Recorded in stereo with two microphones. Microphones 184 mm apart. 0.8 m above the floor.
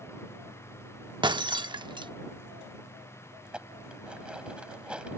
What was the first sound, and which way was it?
Breaking glass, 25° right (ahead or behind).